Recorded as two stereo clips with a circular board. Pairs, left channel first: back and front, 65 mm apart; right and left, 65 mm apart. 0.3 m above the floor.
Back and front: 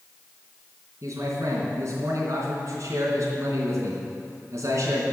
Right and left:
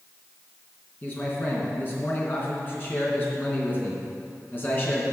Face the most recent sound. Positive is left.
turn(degrees=-30)